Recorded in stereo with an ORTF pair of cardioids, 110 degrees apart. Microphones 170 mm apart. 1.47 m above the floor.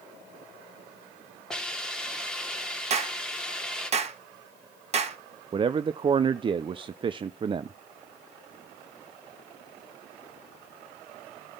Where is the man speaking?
30° right, 0.5 m.